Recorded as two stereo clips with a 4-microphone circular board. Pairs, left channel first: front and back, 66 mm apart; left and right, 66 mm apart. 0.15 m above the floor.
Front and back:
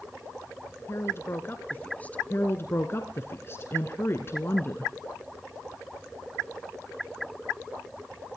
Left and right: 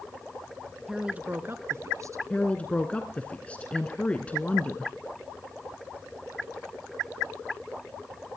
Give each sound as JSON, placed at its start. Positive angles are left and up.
{"t": 0.9, "sound": "a woman speaking", "azimuth_deg": -10, "distance_m": 1.4}
{"t": 2.3, "sound": "a woman speaking", "azimuth_deg": 30, "distance_m": 1.5}